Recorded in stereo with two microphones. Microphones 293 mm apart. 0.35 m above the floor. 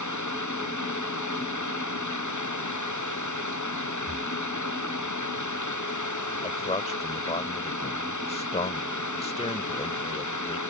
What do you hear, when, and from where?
0.0 s running water: 80° left
4.1 s breathing: 10° right (ahead or behind)
6.4 s a man speaking: 20° left (ahead or behind)